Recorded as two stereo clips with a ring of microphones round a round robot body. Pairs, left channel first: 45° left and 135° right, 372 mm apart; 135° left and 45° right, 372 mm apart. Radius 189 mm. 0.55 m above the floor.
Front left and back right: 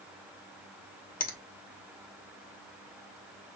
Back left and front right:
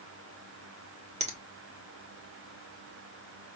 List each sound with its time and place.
1.2 s a finger snap: 5° left, 0.9 m